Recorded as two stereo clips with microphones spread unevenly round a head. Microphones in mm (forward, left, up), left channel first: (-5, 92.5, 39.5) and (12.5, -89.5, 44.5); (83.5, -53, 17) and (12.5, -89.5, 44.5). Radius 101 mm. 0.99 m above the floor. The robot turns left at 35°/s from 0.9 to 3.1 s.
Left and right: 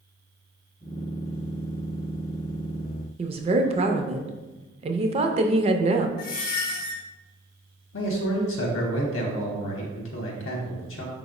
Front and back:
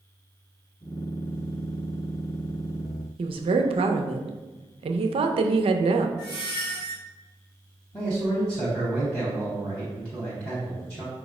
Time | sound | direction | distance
3.2 | a woman speaking | 145° right | 0.5 m
6.2 | a squeak | 135° left | 0.6 m
7.9 | a man speaking | 105° left | 0.8 m